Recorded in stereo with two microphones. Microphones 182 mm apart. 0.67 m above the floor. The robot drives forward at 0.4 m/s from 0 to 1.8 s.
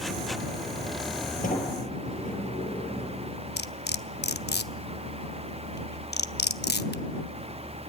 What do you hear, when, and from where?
1.4 s a sliding door: 45° left (ahead or behind), 6 m
3.6 s cutlery clinking: 65° left (ahead or behind), 0.8 m